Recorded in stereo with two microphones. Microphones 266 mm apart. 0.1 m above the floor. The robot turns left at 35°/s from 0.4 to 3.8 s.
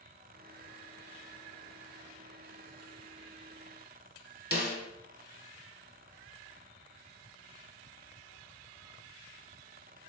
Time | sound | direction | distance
4.5 | a snare drum | 35° left (ahead or behind) | 0.7 m